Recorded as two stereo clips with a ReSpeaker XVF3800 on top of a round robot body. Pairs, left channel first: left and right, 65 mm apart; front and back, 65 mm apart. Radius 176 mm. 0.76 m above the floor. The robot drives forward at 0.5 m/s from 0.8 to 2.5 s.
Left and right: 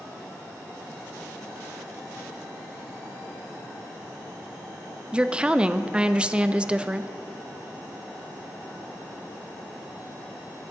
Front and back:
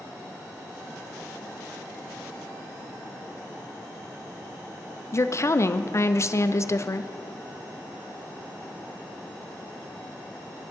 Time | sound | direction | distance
5.1 | a woman speaking | 20° right | 0.6 m